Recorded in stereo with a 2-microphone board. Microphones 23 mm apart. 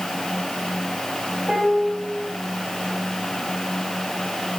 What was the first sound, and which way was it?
A piano, 25° right (ahead or behind).